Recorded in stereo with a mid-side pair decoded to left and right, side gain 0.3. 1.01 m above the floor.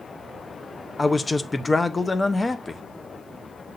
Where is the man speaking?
30° left, 0.6 m.